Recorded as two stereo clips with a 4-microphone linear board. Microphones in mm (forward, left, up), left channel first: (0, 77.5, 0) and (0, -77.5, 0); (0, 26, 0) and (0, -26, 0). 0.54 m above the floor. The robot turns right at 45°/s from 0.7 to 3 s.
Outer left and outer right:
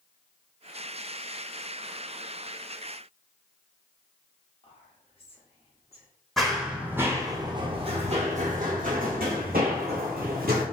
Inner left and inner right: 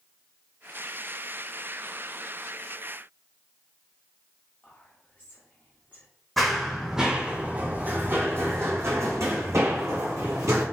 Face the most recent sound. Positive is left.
turn(degrees=-80)